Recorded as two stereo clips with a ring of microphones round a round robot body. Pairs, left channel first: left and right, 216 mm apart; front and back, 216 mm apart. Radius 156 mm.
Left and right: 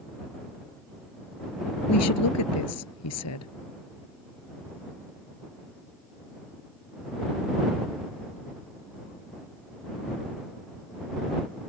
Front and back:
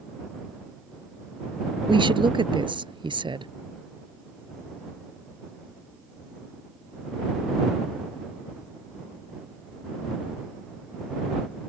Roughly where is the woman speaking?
Left.